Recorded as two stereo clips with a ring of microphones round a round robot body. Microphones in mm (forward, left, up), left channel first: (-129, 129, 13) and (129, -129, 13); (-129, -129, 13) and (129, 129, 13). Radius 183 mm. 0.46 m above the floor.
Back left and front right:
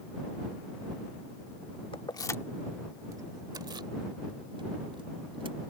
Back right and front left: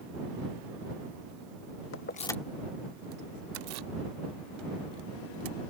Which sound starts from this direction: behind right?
Keys jangling, at 1.9 s.